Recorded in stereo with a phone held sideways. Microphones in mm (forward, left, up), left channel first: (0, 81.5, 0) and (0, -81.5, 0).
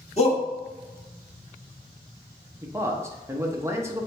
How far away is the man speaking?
About 0.7 m.